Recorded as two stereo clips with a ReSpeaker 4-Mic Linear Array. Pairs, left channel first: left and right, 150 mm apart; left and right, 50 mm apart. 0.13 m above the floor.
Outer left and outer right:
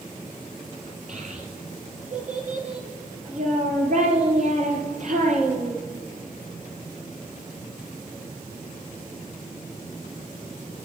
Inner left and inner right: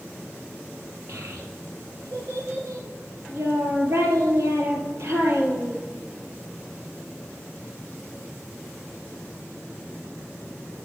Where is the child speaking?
55° right (ahead or behind), 2 m.